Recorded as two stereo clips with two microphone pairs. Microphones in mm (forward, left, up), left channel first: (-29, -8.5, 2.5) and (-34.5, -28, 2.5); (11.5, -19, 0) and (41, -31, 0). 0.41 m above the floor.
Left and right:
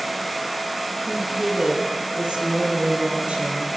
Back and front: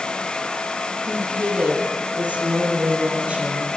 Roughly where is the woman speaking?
Ahead right.